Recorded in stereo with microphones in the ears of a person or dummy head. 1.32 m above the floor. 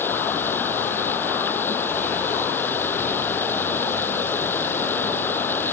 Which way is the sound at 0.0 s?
5° left (ahead or behind).